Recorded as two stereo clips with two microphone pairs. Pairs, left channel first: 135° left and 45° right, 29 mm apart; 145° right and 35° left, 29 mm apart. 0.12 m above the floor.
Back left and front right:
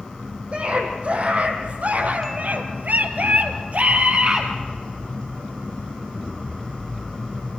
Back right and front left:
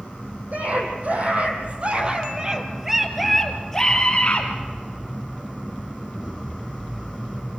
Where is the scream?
5° left, 4.5 m; by 4.5 s 95° right, 2.5 m.